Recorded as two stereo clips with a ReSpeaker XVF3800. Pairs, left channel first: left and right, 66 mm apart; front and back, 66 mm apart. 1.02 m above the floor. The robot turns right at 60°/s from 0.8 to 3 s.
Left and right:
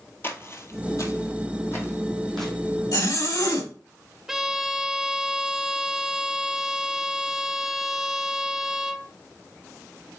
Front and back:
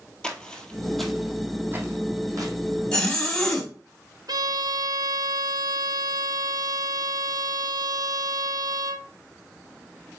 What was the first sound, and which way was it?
Footsteps, 65° left.